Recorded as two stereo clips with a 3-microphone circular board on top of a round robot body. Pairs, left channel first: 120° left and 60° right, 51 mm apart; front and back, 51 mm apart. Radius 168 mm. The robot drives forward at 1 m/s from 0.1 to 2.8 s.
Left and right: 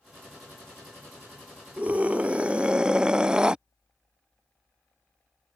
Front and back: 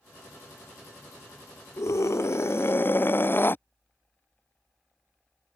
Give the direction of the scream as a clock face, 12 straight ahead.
12 o'clock.